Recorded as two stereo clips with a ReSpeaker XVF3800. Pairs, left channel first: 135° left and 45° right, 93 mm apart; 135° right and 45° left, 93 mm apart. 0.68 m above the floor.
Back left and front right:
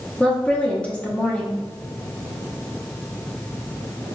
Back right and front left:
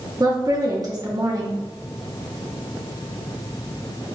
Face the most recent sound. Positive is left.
turn(degrees=65)